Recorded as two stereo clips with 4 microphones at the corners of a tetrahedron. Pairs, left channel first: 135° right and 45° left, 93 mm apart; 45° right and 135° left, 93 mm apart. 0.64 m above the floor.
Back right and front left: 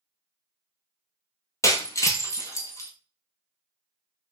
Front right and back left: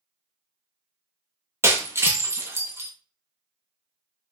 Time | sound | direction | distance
1.6 | breaking glass | 175° right | 0.8 m